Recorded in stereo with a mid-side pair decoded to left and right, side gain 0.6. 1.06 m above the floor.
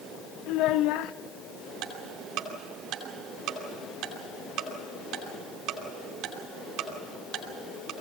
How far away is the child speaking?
About 0.7 m.